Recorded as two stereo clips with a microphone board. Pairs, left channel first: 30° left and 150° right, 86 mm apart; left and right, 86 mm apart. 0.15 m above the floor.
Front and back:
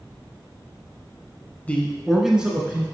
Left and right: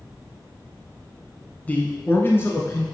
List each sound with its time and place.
1.7 s a man speaking: 60° left, 1.0 m; by 2.8 s 145° left, 1.7 m